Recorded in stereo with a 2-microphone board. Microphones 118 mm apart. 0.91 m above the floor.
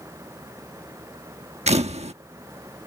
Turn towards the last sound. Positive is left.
turn(degrees=-80)